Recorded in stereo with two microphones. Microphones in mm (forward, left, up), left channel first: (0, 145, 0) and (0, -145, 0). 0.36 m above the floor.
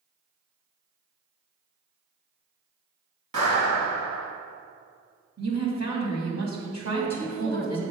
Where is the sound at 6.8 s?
10° left (ahead or behind), 1.9 m.